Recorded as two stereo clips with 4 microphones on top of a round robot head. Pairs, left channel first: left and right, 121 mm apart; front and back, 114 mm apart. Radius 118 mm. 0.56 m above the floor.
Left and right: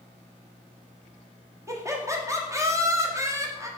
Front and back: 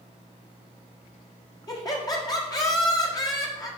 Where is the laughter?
35° right, 1.6 m.